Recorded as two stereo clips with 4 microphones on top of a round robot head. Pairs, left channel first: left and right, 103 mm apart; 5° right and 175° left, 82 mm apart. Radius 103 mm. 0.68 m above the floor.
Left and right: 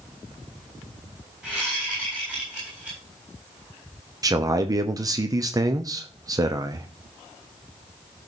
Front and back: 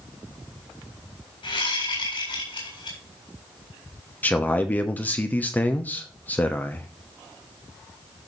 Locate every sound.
1.4 s a whoosh: 10° right, 8 m
4.2 s a man speaking: 60° right, 1.0 m